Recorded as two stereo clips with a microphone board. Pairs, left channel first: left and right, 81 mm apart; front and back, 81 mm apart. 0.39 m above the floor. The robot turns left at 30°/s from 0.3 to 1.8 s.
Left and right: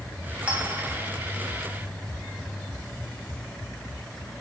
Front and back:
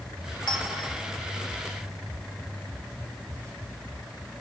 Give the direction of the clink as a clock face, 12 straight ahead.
1 o'clock.